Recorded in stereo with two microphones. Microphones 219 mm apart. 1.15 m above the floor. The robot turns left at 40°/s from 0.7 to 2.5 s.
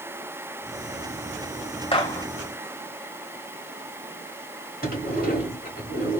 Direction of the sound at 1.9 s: 25° left (ahead or behind).